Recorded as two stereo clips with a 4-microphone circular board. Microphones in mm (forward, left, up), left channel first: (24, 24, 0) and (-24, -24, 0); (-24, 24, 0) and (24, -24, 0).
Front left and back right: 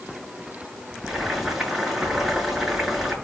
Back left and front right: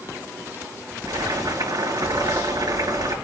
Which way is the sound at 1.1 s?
50° right.